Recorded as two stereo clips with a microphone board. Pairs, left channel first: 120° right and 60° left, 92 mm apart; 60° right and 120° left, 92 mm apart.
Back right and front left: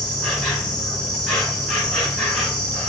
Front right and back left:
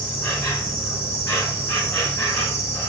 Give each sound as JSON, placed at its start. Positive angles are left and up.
{"t": 0.0, "sound": "an insect", "azimuth_deg": -40, "distance_m": 1.4}